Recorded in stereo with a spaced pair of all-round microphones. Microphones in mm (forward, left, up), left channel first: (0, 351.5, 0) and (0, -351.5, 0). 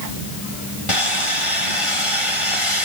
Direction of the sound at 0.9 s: 45° left (ahead or behind).